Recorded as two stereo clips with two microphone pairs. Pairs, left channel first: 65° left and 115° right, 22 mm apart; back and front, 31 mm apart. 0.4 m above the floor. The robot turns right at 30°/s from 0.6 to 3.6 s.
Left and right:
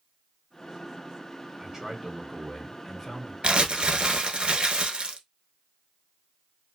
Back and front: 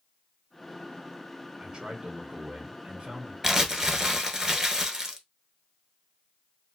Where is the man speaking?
50° right, 1.0 m; by 3.3 s straight ahead, 1.0 m.